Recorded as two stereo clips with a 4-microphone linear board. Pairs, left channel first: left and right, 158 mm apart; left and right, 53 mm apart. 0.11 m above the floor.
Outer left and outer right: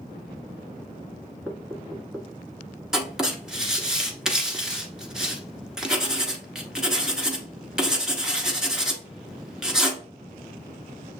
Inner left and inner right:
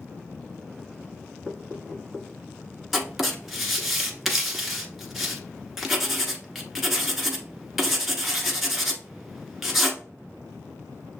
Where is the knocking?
10° left (ahead or behind), 1.2 m.